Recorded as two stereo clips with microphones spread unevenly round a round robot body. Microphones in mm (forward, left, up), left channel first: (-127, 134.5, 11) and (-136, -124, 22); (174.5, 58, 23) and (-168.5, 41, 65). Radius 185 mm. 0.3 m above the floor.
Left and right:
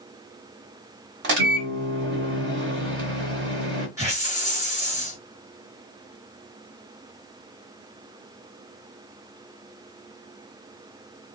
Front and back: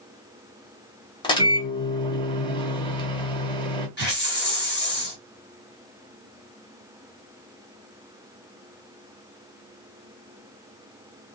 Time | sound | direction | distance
1.2 | a microwave | 60° right | 0.9 m
4.0 | a hiss | 15° right | 1.5 m